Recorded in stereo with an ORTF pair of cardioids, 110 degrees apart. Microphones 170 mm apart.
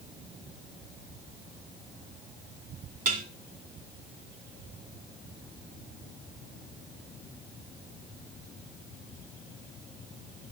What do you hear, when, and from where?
3.0 s dishes clattering: 55° right, 2.5 m